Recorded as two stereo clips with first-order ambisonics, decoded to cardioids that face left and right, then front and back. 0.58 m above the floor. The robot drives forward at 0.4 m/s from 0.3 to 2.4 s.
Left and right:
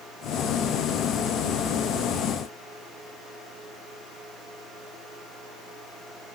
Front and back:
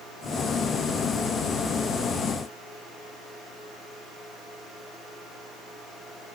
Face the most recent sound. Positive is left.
No sound to turn to.